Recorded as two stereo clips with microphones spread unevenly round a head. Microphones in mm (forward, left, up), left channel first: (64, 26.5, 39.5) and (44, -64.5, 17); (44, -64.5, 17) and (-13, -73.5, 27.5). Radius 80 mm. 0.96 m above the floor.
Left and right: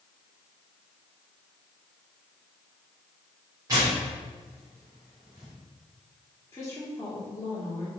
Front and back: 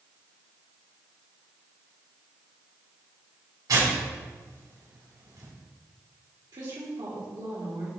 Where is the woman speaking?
150° left, 2.0 m.